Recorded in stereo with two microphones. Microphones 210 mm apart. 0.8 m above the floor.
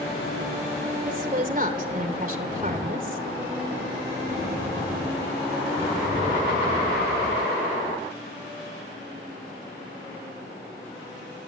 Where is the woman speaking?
40° right (ahead or behind), 3.5 m.